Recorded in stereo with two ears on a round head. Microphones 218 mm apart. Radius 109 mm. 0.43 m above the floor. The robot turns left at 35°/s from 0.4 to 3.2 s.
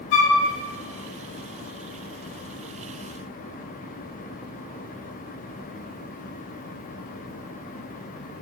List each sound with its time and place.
0.1 s a flute: 55° left (ahead or behind), 0.6 m